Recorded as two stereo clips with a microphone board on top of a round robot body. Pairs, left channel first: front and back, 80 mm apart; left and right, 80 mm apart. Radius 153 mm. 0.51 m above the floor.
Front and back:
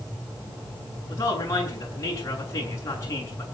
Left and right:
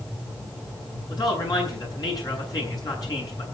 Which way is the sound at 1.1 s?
50° left.